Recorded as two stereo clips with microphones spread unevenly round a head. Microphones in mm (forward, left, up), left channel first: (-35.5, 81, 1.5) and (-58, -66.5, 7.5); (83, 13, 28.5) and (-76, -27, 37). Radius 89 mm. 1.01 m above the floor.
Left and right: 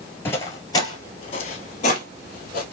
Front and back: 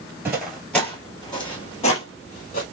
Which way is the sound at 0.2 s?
140° left.